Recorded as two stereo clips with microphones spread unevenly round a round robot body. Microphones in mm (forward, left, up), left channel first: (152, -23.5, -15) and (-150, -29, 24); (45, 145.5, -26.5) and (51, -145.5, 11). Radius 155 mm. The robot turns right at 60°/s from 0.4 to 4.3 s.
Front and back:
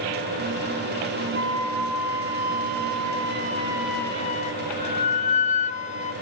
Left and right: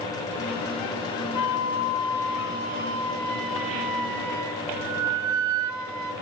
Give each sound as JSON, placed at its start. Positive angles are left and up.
{"t": 1.4, "sound": "a flute", "azimuth_deg": 120, "distance_m": 1.2}